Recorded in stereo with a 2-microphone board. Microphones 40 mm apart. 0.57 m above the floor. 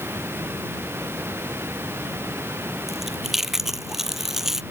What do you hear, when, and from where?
0.0 s running water: 75° right (ahead or behind)
2.9 s chewing: 10° right (ahead or behind)